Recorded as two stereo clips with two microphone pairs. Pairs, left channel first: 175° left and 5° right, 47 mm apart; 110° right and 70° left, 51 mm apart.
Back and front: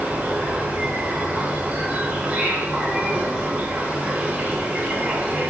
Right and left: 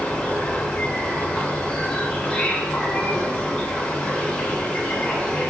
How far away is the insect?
About 3 m.